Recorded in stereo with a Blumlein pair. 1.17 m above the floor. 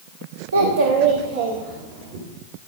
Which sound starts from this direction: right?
A child speaking, at 0.5 s.